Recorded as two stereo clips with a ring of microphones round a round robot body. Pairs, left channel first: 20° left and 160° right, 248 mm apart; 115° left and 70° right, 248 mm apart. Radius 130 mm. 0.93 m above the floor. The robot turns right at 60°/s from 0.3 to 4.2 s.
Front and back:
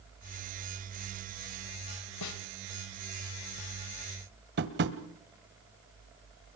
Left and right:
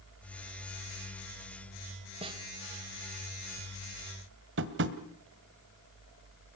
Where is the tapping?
110° right, 1.4 m.